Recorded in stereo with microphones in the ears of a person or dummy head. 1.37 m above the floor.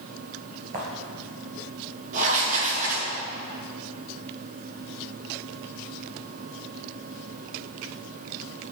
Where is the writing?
45° right (ahead or behind), 2 m.